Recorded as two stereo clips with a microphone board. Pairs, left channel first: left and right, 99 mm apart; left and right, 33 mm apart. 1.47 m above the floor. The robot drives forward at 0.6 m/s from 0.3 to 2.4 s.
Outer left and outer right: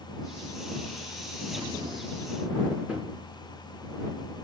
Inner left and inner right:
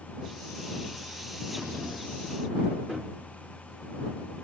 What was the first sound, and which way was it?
Breathing, 35° right (ahead or behind).